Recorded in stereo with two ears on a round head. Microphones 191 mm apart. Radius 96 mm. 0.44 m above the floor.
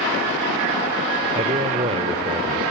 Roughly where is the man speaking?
Right.